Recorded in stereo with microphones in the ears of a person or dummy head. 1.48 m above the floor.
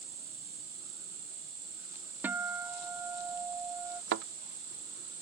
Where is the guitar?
15° right (ahead or behind).